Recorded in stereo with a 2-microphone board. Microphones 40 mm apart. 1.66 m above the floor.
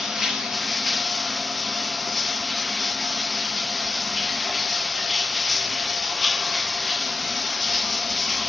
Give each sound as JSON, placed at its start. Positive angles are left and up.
{"t": 0.0, "sound": "running water", "side_deg": -10, "distance_m": 1.5}